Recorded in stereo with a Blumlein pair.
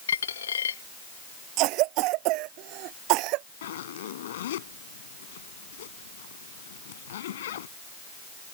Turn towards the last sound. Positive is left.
turn(degrees=60)